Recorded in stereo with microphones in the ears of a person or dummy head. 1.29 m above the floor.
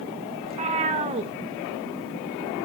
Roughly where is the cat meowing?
Right.